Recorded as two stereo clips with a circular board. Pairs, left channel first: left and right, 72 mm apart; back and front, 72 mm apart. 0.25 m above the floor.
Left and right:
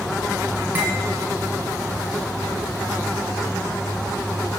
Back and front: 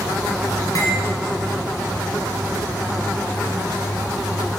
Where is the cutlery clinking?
155° right, 1.7 m.